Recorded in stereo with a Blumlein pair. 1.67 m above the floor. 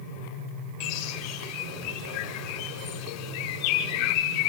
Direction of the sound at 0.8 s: 40° left.